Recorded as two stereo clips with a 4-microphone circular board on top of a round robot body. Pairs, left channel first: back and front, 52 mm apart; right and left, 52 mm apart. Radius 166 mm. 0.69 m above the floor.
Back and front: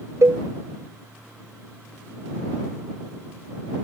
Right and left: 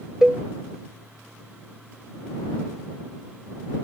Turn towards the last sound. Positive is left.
turn(degrees=10)